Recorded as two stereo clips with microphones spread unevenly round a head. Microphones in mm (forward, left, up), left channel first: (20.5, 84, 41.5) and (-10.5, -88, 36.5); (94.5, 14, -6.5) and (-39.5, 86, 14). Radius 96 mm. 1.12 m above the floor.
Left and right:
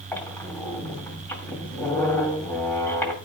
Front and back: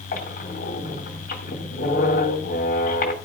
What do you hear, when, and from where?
0.1 s a squeak: straight ahead, 2 m